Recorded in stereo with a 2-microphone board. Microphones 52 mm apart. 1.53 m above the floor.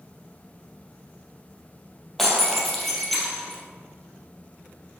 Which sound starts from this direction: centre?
Breaking glass, at 2.2 s.